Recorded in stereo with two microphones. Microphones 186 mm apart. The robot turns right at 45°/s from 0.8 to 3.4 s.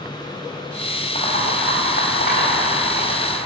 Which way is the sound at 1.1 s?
50° left.